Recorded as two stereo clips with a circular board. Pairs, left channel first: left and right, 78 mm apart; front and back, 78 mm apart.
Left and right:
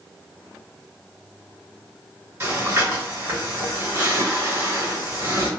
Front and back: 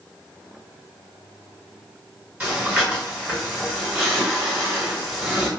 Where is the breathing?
115° right, 1.7 m.